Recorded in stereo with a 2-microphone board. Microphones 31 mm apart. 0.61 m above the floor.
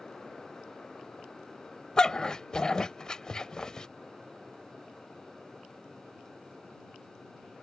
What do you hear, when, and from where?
2.0 s a dog barking: 25° left (ahead or behind)